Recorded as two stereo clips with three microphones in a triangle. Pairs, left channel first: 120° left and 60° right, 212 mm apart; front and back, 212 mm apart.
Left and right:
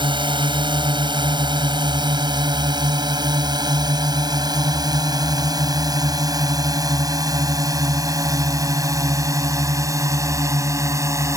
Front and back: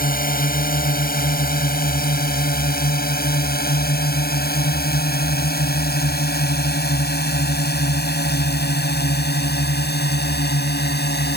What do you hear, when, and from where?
0.0 s a drone: 5° right; by 11.4 s 15° left